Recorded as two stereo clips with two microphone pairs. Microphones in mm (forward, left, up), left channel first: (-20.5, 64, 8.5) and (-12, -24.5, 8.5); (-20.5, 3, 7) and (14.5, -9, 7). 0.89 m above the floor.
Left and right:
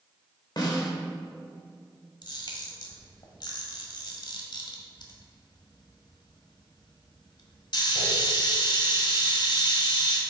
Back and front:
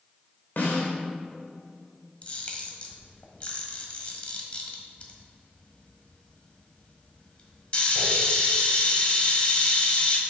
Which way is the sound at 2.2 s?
110° left.